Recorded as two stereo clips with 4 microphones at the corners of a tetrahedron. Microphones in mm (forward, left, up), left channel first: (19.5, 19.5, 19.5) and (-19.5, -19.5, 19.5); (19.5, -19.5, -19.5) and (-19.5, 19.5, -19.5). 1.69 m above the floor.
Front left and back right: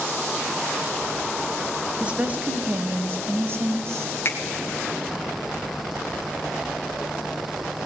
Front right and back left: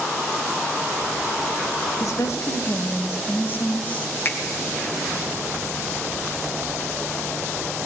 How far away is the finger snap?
About 1.9 m.